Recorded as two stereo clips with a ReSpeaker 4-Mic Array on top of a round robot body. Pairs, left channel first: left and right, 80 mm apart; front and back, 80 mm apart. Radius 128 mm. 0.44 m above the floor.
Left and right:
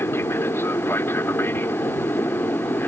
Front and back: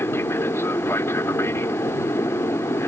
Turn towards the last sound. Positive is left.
turn(degrees=40)